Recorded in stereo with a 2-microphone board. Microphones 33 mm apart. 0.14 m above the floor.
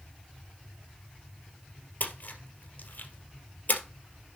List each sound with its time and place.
2.0 s a splash: 55° left (ahead or behind), 2 m